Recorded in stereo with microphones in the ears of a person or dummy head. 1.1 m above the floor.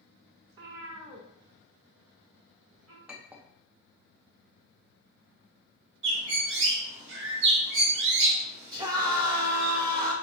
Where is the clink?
10° right (ahead or behind), 0.5 m.